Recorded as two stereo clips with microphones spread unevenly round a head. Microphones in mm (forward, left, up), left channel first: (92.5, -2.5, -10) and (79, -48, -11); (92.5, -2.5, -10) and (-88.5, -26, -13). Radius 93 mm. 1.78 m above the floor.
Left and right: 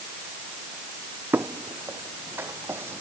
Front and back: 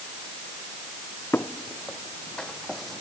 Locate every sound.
1.3 s footsteps: 70° right; by 3.0 s 80° right